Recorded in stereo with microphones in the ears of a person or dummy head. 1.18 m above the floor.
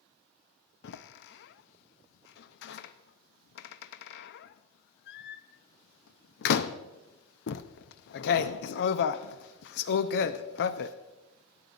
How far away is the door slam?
About 0.7 m.